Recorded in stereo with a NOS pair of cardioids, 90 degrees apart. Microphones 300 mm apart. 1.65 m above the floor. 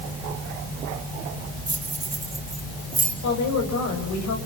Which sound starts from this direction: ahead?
Keys jangling, at 1.7 s.